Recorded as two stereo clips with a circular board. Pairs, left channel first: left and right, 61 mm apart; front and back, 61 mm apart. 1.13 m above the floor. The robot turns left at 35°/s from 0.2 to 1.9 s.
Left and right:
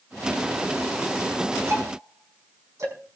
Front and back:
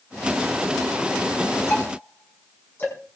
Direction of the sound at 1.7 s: 45° right.